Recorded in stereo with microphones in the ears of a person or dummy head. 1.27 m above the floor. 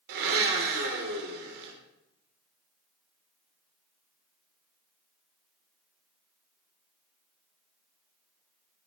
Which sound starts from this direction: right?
A blender, at 0.1 s.